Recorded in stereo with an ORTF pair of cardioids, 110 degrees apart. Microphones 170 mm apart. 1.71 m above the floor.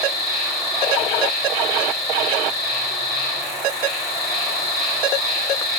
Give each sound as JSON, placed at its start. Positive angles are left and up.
{"t": 0.0, "sound": "an insect", "azimuth_deg": 60, "distance_m": 4.5}